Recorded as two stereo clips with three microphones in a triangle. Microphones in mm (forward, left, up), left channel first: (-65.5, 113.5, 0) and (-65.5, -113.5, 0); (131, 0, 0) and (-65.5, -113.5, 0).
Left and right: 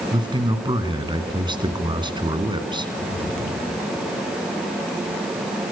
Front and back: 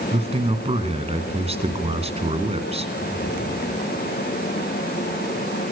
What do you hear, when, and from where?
0.1 s a man speaking: 135° right, 1.7 m